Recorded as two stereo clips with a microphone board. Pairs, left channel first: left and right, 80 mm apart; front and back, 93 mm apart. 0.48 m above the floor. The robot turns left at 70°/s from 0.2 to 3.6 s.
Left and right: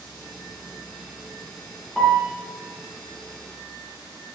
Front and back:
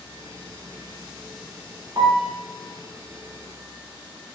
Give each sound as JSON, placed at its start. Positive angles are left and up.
{"t": 2.0, "sound": "a piano", "azimuth_deg": 175, "distance_m": 0.6}